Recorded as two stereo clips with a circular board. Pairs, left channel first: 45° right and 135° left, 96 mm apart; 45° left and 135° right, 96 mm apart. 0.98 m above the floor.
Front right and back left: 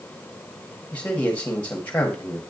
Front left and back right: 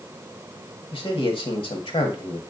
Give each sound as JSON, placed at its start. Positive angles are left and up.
{"t": 0.9, "sound": "a man speaking", "azimuth_deg": 30, "distance_m": 1.5}